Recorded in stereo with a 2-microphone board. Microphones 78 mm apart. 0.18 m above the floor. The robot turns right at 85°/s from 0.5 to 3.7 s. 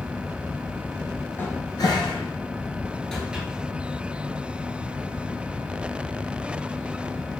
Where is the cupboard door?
25° left (ahead or behind), 1.1 m; by 3.5 s 20° right (ahead or behind), 1.1 m.